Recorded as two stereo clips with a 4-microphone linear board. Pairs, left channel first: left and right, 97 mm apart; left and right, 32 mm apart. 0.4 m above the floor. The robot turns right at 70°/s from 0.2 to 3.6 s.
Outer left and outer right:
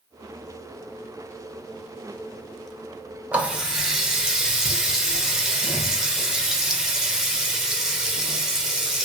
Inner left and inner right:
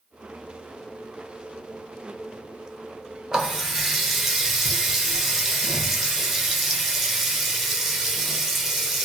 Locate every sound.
3.3 s a running tap: 20° right (ahead or behind), 0.7 m; by 9.1 s 5° right (ahead or behind), 0.7 m